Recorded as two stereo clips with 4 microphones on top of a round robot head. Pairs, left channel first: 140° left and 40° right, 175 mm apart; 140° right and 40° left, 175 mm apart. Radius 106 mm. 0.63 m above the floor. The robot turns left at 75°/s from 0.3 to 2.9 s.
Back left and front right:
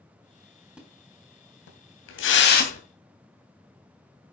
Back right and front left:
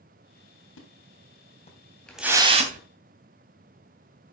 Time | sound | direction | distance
0.8 | a splash | 125° right | 3 m